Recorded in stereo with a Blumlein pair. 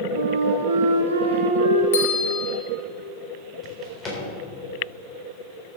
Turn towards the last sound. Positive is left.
turn(degrees=20)